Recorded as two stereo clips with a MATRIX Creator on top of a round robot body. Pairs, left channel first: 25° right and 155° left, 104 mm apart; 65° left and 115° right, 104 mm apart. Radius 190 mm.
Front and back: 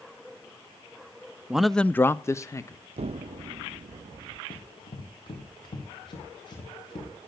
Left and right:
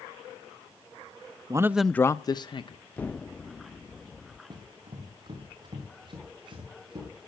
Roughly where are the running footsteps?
Ahead right.